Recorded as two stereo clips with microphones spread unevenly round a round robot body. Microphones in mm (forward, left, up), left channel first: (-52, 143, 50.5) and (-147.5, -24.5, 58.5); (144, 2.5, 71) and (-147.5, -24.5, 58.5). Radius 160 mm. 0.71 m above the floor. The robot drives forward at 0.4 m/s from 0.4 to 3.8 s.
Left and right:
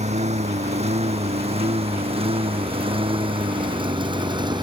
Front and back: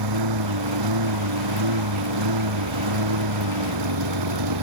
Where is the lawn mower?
175° right; by 4.6 s 175° left.